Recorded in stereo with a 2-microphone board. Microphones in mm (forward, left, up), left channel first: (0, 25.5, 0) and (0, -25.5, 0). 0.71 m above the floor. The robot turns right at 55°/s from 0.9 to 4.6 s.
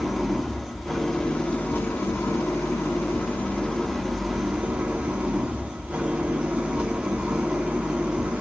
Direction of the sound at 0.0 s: Straight ahead.